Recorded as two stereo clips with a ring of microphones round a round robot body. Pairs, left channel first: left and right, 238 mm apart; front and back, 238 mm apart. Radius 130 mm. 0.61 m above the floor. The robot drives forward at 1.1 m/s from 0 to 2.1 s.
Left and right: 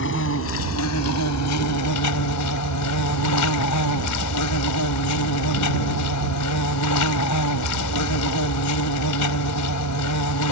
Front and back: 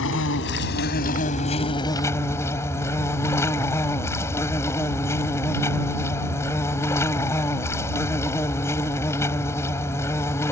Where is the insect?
45° left; by 10.5 s 80° left.